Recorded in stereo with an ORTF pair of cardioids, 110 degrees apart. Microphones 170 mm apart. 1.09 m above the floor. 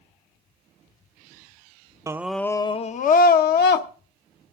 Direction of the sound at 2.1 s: 20° right.